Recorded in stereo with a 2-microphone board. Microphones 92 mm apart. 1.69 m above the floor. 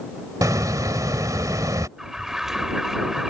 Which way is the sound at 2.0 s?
5° right (ahead or behind).